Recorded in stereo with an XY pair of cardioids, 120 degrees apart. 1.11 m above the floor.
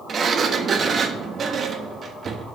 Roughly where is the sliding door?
Ahead right.